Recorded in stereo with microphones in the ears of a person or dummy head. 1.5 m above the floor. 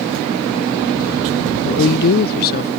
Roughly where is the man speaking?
Left.